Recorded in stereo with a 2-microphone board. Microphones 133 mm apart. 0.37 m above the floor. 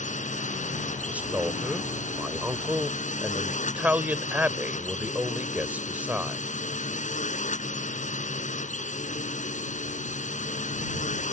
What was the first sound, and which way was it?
A drone, 70° left (ahead or behind).